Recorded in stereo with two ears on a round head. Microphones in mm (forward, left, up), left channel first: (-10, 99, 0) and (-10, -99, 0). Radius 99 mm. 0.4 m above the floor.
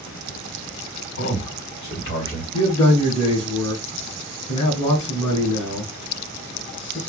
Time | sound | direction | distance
1.2 | a man speaking | 40° left (ahead or behind) | 1.9 m
2.5 | a man speaking | 15° left (ahead or behind) | 1.4 m